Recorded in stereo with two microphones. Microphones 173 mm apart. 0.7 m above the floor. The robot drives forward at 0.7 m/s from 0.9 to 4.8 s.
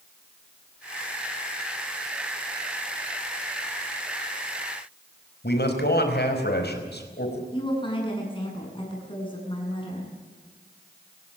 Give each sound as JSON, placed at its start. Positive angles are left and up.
{"t": 5.4, "sound": "a man speaking", "side_deg": 70, "distance_m": 5.0}
{"t": 7.5, "sound": "a woman speaking", "side_deg": 30, "distance_m": 7.5}